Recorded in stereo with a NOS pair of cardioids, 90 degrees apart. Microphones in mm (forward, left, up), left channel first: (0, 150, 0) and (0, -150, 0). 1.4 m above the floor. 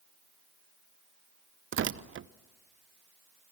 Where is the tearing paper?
40° right, 0.8 m.